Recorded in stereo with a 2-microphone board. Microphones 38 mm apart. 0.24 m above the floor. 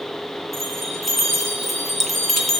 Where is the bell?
Centre (ahead or behind), 2 m.